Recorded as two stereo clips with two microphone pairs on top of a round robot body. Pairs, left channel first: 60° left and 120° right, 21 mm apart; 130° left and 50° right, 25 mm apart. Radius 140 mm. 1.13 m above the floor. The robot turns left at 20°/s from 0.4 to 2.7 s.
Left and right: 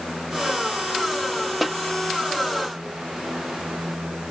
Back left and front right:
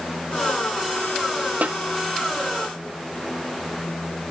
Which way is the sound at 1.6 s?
35° right.